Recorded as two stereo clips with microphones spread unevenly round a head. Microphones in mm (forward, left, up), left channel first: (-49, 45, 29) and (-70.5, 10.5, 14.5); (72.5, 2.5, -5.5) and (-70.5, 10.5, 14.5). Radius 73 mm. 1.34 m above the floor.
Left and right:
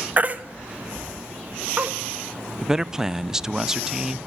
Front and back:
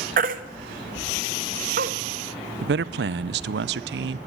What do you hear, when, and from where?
0.2 s a baby crying: straight behind, 0.9 m
2.6 s a man speaking: 160° left, 0.5 m